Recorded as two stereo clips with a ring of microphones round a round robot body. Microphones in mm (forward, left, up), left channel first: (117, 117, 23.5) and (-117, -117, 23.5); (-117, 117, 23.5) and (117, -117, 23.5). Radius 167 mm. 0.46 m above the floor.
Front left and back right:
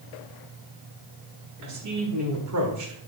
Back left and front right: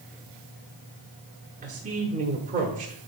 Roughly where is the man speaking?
Right.